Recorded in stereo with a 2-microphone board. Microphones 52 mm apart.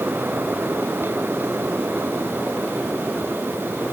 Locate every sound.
Only background noise.